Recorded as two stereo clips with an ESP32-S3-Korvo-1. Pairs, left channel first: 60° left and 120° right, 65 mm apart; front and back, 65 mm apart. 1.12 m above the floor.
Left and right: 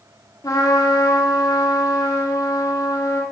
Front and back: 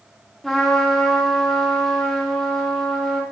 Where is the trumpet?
85° left, 1.8 m.